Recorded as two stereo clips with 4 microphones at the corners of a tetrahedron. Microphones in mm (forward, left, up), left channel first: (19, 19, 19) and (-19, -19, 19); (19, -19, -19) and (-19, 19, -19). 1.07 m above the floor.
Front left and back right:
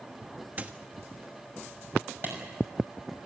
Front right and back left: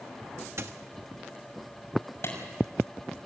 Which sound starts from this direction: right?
A clap, at 2.2 s.